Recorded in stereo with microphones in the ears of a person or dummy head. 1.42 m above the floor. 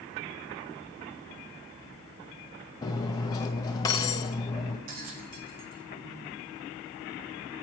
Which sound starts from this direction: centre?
Cutlery clinking, at 2.8 s.